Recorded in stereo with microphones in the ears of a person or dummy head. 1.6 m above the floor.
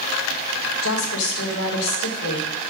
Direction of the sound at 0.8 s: 90° left.